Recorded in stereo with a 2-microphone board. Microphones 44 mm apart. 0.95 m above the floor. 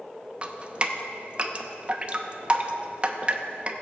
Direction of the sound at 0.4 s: 30° right (ahead or behind).